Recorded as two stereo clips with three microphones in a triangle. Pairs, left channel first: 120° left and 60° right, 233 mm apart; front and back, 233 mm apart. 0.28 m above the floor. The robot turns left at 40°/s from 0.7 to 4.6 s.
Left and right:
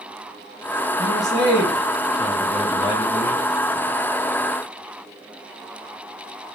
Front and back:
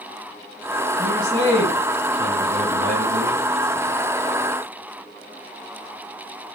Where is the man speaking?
65° right, 2 m; by 3.4 s 165° right, 2 m.